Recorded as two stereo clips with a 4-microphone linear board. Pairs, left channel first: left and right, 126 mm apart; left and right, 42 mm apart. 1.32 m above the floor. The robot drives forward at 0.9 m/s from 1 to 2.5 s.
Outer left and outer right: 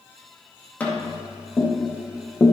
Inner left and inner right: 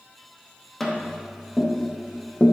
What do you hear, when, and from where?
0.8 s tapping: 15° left (ahead or behind), 2.5 m; by 2.5 s 30° left (ahead or behind), 1.0 m